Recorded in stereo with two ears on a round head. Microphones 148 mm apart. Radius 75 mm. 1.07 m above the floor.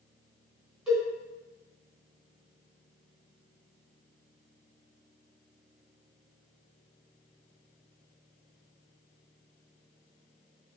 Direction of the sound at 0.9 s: 5° right (ahead or behind).